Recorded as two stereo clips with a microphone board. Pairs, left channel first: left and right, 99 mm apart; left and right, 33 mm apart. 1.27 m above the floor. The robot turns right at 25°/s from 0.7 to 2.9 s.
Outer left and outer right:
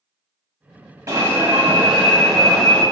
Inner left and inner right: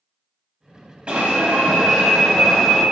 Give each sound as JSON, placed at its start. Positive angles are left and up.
{"t": 1.1, "sound": "an alarm", "azimuth_deg": -35, "distance_m": 1.1}